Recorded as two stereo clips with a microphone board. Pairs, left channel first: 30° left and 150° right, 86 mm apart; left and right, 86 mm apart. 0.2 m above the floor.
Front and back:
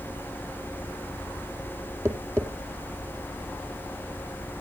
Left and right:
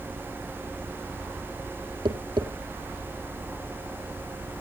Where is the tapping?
95° right, 2.0 m.